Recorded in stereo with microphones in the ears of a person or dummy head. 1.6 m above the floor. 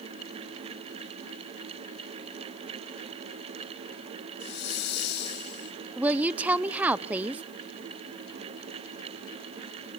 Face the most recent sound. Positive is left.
turn(degrees=-5)  # may be behind; listen again after turning